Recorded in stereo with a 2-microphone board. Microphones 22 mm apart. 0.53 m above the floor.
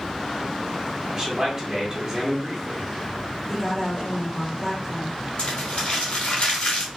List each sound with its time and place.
1.1 s a man speaking: 25° right (ahead or behind), 1.4 m
3.5 s a woman speaking: 20° left (ahead or behind), 1.8 m
5.4 s crumpling: 65° left (ahead or behind), 1.9 m